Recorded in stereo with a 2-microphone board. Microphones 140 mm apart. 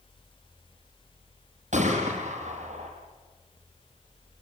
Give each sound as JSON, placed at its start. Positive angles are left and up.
{"t": 1.7, "sound": "a gunshot", "side_deg": -60, "distance_m": 7.5}